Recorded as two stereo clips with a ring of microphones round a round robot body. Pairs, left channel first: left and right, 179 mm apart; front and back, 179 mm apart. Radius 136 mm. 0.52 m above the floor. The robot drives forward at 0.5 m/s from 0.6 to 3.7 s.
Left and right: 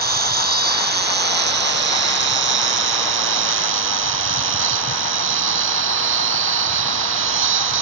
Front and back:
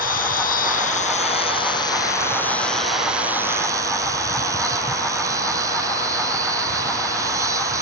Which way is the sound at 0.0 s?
60° right.